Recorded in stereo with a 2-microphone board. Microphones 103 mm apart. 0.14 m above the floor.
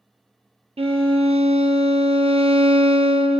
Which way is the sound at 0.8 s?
75° right (ahead or behind).